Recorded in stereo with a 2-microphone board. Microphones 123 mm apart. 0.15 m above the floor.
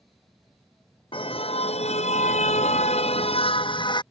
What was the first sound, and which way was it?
A car horn, 50° left (ahead or behind).